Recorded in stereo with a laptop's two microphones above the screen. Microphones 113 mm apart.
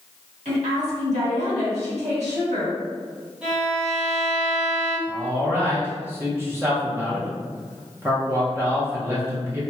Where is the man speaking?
20° right (ahead or behind), 0.6 m.